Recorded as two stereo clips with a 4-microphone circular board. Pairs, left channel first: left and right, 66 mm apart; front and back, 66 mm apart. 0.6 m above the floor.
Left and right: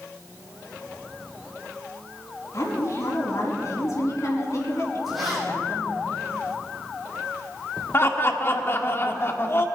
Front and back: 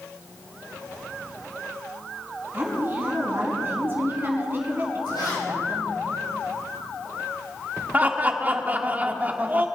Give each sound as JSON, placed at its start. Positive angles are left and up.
{"t": 2.5, "sound": "a woman speaking", "azimuth_deg": 120, "distance_m": 5.0}
{"t": 5.1, "sound": "a zipper", "azimuth_deg": 0, "distance_m": 6.5}
{"t": 7.9, "sound": "laughter", "azimuth_deg": 125, "distance_m": 1.6}